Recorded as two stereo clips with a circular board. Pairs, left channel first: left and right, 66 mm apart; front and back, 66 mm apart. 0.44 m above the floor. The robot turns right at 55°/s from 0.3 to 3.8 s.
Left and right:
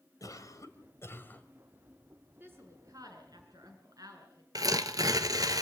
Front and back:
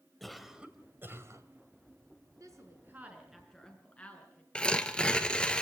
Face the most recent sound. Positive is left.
turn(degrees=-75)